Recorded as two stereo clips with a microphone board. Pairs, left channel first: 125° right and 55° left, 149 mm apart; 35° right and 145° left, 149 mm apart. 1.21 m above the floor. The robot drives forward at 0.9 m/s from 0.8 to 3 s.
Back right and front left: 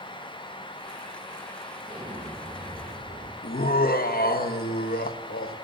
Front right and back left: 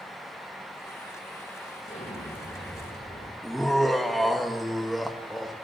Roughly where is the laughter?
Behind right.